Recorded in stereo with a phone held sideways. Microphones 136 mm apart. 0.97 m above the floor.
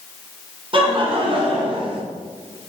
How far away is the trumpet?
No trumpet in this recording.